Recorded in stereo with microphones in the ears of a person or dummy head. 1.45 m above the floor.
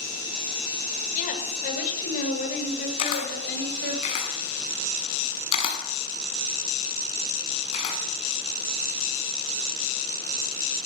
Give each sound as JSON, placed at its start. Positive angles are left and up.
{"t": 1.1, "sound": "a woman speaking", "side_deg": 40, "distance_m": 6.0}
{"t": 3.0, "sound": "a camera shutter", "side_deg": 35, "distance_m": 6.0}